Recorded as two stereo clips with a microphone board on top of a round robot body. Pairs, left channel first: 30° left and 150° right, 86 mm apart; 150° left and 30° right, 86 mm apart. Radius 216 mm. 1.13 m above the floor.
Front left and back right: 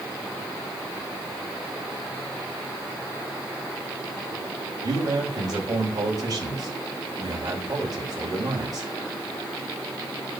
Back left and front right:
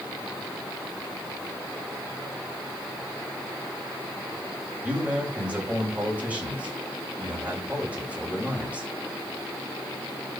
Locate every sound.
4.8 s a man speaking: 105° right, 8 m